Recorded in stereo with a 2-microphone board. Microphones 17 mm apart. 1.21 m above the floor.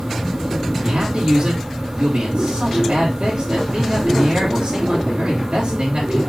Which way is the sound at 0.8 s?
80° right.